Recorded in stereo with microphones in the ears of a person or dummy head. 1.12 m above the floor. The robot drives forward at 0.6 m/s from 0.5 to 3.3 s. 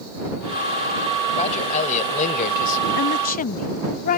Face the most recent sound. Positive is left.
turn(degrees=45)  # may be behind; listen again after turning